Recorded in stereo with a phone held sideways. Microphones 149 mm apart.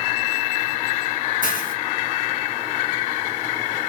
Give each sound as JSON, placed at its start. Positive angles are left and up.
{"t": 1.4, "sound": "a hiss", "side_deg": 65, "distance_m": 1.0}